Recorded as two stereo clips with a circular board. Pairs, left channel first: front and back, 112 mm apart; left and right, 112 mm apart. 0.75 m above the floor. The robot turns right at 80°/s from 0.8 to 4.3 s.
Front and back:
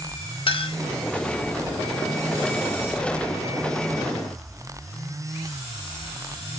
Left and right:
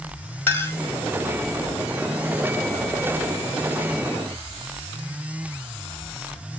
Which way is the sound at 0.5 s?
20° left.